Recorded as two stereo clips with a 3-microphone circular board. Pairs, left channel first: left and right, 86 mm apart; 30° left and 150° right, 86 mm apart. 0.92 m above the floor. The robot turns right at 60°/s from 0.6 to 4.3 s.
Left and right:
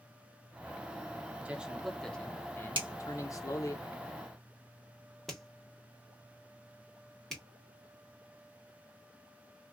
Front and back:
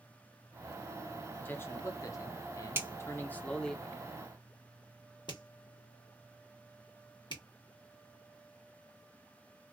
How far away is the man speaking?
About 0.7 m.